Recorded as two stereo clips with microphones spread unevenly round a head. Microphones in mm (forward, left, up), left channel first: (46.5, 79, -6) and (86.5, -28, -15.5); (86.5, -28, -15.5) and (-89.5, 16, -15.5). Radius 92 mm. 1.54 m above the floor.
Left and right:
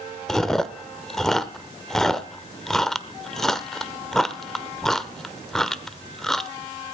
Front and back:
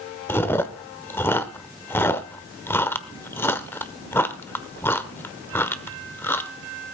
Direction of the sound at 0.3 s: 45° left.